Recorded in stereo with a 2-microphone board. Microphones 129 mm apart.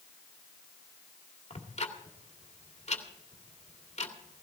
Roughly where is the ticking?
Left.